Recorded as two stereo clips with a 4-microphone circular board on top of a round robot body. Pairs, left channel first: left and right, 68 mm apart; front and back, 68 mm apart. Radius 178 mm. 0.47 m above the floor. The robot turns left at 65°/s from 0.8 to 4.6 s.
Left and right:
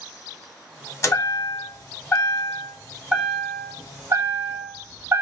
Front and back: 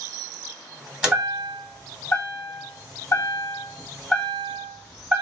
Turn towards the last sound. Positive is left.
turn(degrees=-125)